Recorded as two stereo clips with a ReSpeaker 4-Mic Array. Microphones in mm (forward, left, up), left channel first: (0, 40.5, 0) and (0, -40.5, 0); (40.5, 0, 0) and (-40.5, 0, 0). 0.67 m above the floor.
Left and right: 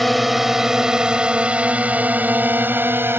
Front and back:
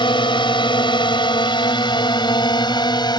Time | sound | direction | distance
0.0 | a drone | straight ahead | ?